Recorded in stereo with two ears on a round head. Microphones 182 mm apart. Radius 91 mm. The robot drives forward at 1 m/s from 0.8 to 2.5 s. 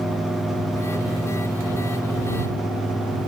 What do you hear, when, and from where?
Only background noise.